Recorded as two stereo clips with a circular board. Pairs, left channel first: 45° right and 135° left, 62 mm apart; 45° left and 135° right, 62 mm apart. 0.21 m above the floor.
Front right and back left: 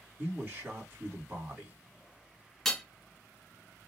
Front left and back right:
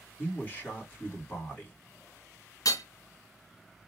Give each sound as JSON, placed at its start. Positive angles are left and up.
{"t": 0.2, "sound": "a man speaking", "azimuth_deg": 90, "distance_m": 1.9}
{"t": 2.6, "sound": "hammering", "azimuth_deg": 40, "distance_m": 0.8}